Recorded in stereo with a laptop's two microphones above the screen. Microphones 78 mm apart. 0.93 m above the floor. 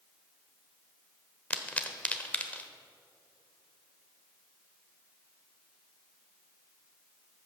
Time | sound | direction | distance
1.5 | a pop | 15° left (ahead or behind) | 1.0 m